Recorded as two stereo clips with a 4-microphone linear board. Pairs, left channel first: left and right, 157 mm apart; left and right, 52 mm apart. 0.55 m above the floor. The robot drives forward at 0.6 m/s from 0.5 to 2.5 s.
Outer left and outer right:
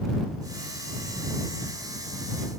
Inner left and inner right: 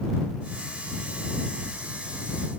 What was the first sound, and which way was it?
Only background noise.